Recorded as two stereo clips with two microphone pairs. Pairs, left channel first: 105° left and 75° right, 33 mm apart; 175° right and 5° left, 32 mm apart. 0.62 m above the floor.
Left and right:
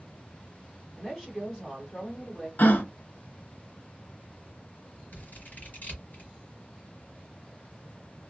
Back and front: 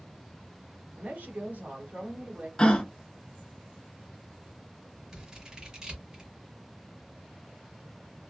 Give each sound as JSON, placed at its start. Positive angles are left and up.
{"t": 1.0, "sound": "a woman speaking", "azimuth_deg": 35, "distance_m": 1.5}
{"t": 2.6, "sound": "a gasp", "azimuth_deg": 125, "distance_m": 0.8}
{"t": 5.1, "sound": "scissors", "azimuth_deg": 70, "distance_m": 1.4}